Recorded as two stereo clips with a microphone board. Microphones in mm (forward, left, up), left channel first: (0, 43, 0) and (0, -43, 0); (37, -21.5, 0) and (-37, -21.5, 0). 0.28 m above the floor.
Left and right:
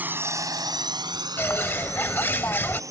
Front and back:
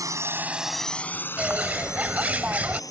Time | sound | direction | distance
0.0 | a drone | 155° right | ?
1.4 | a bird | 130° left | ?